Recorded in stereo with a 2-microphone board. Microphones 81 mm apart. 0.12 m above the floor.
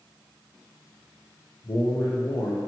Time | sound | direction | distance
1.6 | a man speaking | 60° left (ahead or behind) | 3.5 m